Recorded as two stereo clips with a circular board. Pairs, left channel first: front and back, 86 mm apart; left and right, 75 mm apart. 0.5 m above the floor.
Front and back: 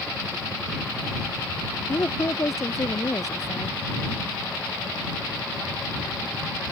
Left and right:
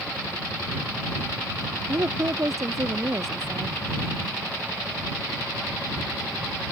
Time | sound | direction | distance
1.9 | a woman speaking | 50° right | ?